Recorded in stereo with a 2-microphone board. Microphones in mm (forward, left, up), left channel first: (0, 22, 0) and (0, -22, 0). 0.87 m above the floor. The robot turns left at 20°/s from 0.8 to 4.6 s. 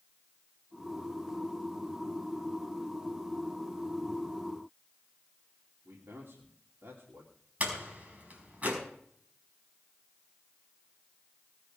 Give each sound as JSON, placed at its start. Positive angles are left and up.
{"t": 5.8, "sound": "a man speaking", "side_deg": -65, "distance_m": 2.5}
{"t": 7.6, "sound": "a door slam", "side_deg": -35, "distance_m": 5.0}